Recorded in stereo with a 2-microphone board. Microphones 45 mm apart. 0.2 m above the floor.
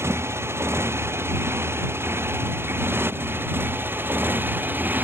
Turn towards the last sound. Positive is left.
turn(degrees=-40)  # may be behind; listen again after turning